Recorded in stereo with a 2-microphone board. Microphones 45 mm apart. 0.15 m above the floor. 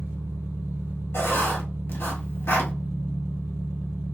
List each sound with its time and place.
0.0 s an engine running: 65° right (ahead or behind), 1.1 m
1.1 s writing: 65° left (ahead or behind), 1.3 m